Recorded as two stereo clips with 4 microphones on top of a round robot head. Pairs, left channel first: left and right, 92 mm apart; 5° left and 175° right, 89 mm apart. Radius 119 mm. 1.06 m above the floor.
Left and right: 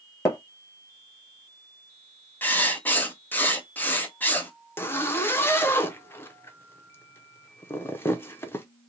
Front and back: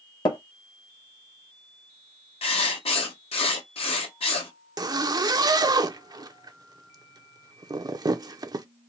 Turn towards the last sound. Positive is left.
turn(degrees=150)